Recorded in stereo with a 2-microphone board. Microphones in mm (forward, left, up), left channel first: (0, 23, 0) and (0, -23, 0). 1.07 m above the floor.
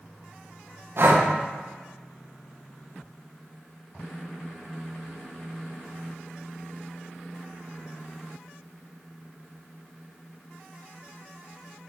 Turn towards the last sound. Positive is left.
turn(degrees=-55)  # may be behind; listen again after turning